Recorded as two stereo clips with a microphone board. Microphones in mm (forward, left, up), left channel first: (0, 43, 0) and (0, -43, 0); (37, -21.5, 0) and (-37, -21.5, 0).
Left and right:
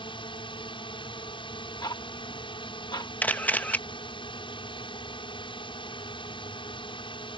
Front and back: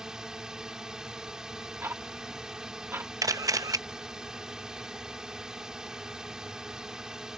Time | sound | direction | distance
0.0 | a drone | 100° left | ?
1.8 | ticking | 120° left | ?
3.2 | a camera shutter | 155° left | ?